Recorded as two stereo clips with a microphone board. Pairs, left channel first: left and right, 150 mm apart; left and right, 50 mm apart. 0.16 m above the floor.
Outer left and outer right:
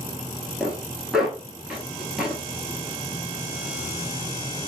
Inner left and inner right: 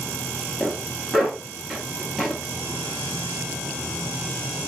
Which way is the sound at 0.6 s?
5° right (ahead or behind).